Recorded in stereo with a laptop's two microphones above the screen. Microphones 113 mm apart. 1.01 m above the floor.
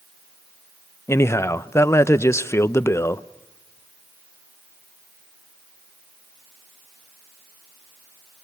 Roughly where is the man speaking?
Left.